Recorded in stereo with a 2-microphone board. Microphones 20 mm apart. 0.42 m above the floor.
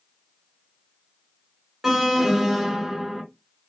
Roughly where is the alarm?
Centre.